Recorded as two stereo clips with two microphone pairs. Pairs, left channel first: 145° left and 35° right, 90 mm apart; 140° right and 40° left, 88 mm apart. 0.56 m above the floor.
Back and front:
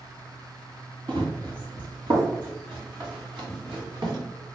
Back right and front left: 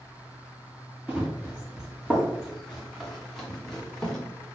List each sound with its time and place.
1.1 s running footsteps: 40° right, 2.5 m; by 4.2 s 55° right, 4 m